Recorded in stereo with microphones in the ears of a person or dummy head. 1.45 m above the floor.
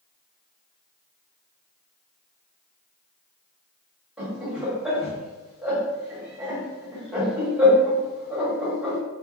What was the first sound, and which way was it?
Laughter, 10° right (ahead or behind).